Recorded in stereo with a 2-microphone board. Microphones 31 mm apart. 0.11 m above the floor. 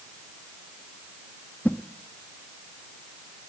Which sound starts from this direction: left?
A whoosh, at 1.6 s.